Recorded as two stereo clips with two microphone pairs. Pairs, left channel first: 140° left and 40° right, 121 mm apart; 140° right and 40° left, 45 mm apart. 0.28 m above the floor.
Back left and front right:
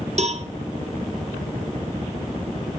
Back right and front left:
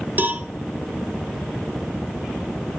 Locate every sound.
0.2 s a cowbell: 10° right, 0.9 m